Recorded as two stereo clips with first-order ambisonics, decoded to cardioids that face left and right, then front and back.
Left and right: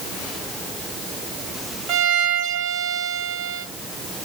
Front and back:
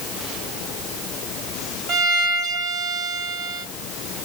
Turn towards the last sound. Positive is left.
turn(degrees=-130)